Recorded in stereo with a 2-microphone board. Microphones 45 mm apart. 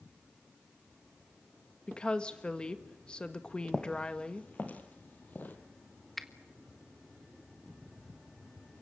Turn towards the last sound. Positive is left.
turn(degrees=5)  # may be behind; listen again after turning